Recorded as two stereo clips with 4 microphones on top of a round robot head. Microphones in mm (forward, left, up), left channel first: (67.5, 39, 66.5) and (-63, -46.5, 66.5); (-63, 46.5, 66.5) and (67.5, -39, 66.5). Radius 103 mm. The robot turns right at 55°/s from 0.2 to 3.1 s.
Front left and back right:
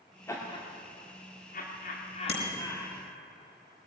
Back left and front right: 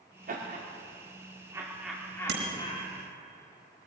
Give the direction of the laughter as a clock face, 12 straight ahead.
1 o'clock.